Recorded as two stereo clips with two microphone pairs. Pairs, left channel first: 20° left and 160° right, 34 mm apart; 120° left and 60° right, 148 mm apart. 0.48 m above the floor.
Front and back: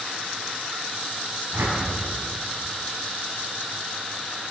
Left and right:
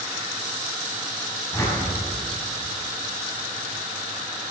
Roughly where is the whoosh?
Behind.